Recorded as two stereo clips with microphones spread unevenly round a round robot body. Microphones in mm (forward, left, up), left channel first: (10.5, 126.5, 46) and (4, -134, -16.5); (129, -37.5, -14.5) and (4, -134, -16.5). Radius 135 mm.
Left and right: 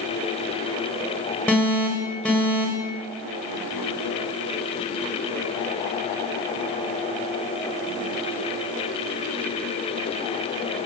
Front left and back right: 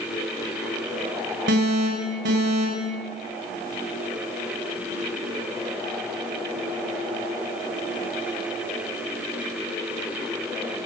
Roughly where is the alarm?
Behind.